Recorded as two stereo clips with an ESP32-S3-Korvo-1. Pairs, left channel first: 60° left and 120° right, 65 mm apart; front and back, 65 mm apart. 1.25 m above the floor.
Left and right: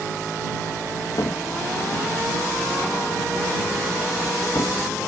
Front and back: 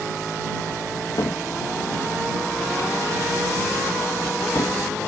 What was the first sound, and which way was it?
A cupboard door, 30° left.